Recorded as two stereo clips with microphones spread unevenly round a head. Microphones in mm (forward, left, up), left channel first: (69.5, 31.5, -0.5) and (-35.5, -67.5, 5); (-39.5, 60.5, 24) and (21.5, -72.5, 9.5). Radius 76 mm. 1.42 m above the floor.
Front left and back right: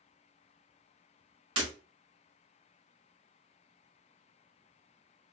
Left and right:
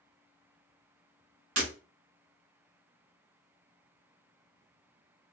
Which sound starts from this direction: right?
Breaking glass, at 1.6 s.